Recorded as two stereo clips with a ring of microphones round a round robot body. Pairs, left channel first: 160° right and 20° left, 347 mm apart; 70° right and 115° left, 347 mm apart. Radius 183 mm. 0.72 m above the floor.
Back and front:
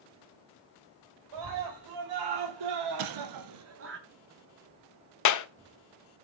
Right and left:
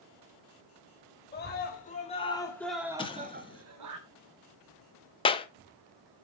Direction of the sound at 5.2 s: 140° right.